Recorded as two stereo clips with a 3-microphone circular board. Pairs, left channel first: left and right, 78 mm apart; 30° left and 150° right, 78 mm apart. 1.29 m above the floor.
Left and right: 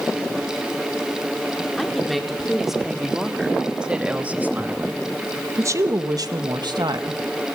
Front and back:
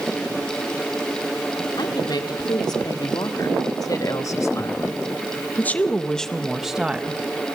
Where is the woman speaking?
Straight ahead, 4 m; by 7.2 s 80° right, 1.8 m.